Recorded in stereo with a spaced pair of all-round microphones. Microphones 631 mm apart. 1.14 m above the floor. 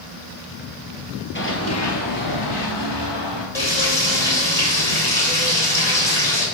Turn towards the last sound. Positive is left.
turn(degrees=75)  # may be behind; listen again after turning